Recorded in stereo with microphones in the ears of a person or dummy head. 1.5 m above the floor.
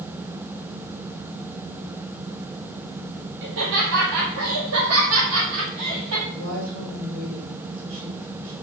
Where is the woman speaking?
75° right (ahead or behind), 4 m.